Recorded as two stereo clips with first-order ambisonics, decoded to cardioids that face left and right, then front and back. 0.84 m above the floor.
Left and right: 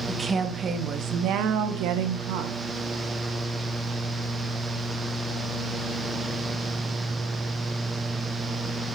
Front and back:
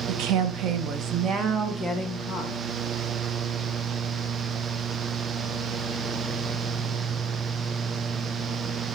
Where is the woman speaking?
170° right, 1.1 m; by 2.6 s 85° right, 1.4 m.